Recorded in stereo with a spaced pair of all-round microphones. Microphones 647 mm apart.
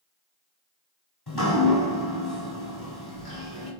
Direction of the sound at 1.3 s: 40° left (ahead or behind).